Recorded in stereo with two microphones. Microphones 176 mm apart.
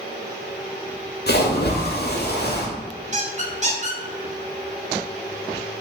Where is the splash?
65° left (ahead or behind), 0.7 m.